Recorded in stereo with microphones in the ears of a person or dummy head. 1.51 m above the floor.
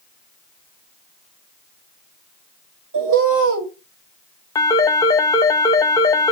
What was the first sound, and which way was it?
A bird, 65° right (ahead or behind).